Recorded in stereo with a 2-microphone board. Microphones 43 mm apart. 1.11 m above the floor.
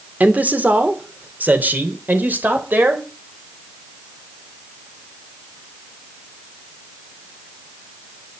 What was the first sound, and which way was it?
A man speaking, 35° right (ahead or behind).